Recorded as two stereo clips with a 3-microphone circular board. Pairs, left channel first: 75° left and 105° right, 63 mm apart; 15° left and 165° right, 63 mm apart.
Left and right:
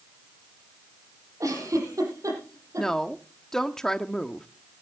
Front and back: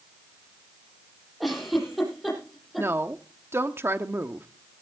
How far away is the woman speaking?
About 1.0 m.